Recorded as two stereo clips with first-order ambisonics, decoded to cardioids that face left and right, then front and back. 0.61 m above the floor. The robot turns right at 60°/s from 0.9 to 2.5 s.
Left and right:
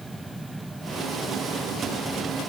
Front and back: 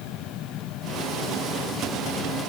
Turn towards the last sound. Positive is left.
No sound to turn to.